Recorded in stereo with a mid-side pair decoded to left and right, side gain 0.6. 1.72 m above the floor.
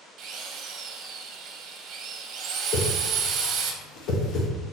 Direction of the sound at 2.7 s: 65° left.